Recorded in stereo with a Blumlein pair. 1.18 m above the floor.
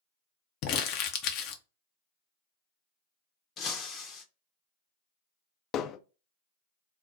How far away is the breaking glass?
About 0.8 m.